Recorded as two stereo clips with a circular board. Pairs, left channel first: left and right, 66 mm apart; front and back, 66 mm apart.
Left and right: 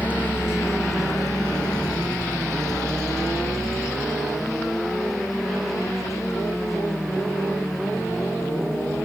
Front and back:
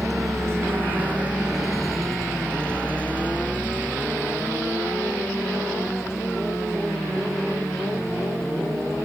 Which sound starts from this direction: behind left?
A vehicle, at 0.0 s.